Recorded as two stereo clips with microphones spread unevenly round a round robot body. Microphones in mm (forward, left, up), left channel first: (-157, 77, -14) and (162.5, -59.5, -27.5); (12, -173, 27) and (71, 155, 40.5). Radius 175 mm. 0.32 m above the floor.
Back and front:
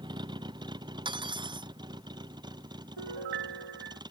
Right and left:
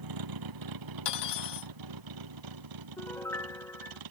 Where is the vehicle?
55° left.